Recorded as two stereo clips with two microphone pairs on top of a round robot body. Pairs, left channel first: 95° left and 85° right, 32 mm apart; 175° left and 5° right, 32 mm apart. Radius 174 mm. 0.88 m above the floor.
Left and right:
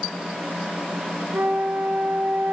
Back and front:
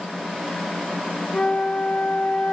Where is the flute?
125° right, 0.8 m.